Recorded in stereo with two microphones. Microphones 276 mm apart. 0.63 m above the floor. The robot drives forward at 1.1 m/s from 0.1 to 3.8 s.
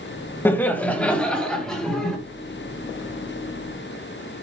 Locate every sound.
0.5 s laughter: 10° left (ahead or behind), 0.8 m; by 2.2 s 5° left (ahead or behind), 2.5 m